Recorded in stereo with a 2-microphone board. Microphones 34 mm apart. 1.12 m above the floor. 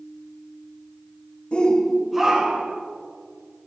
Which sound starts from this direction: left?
A shout, at 1.5 s.